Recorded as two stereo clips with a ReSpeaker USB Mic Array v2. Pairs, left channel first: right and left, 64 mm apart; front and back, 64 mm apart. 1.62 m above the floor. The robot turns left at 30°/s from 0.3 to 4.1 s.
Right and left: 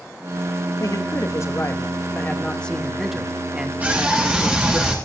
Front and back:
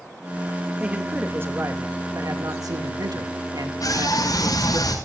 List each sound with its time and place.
0.8 s a man speaking: 110° right, 2.5 m; by 4.8 s 155° left, 2.5 m
3.8 s a scream: 30° left, 6 m; by 4.9 s 20° left, 6 m